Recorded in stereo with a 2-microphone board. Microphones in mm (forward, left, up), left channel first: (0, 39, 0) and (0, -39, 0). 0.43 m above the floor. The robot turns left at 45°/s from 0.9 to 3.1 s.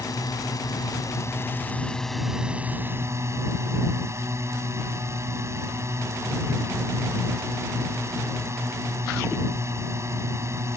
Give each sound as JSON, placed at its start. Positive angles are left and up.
{"t": 0.0, "sound": "a drone", "azimuth_deg": 60}